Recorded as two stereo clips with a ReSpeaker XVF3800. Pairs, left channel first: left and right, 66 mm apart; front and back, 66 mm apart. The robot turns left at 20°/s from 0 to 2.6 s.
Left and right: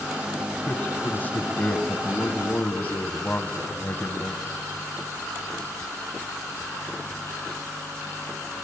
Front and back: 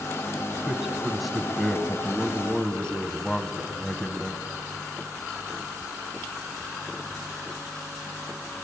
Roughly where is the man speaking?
Left.